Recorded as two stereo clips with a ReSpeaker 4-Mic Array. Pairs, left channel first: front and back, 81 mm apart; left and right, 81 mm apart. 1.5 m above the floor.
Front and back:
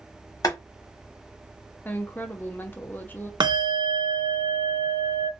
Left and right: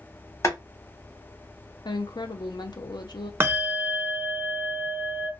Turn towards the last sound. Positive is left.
turn(degrees=-150)